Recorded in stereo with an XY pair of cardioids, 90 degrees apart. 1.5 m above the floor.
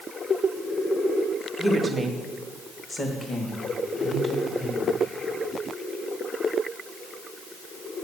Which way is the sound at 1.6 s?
20° right.